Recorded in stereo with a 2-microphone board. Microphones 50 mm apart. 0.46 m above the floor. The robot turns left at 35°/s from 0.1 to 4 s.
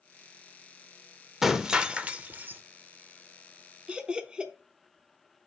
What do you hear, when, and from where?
1.4 s breaking glass: 10° right, 0.5 m; by 2.6 s 50° right, 0.5 m
3.9 s laughter: 20° right (ahead or behind), 0.7 m